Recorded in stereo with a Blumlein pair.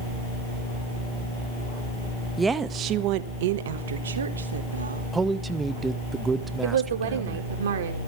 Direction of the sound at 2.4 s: 10° right.